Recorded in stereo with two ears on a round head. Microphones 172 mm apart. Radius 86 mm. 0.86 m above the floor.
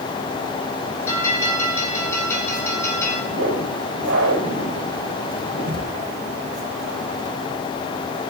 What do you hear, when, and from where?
1.1 s a bell: 15° left (ahead or behind), 6 m
3.3 s a whoosh: 80° right, 2.5 m